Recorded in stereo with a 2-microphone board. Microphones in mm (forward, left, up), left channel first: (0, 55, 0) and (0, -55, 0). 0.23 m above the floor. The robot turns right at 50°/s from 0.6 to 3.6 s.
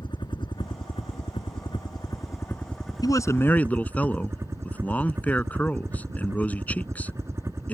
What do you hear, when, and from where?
0.0 s a helicopter: 60° left; by 7.7 s 150° right
3.0 s a man speaking: 40° left (ahead or behind); by 7.7 s 15° left (ahead or behind)